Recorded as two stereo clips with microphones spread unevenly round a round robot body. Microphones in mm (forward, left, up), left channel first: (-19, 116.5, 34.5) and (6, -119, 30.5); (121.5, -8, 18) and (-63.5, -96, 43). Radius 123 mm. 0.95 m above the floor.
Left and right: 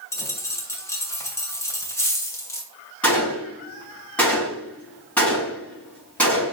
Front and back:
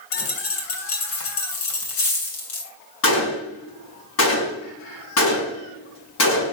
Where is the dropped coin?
15° left, 2.5 m.